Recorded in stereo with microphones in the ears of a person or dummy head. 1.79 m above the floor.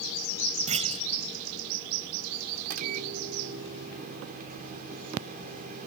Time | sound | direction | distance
0.7 | a clunk | 35° right (ahead or behind) | ?
2.6 | a microwave | 50° right (ahead or behind) | ?